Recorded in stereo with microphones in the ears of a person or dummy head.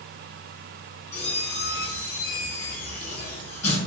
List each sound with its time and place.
1.1 s a squeak: 15° left (ahead or behind), 1.9 m